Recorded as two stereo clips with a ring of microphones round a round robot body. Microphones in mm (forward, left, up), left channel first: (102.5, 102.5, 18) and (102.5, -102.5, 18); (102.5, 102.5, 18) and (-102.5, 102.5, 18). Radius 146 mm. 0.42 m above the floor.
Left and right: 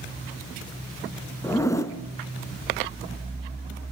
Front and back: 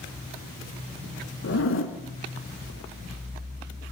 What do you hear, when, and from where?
1.4 s a zipper: 15° left, 3.5 m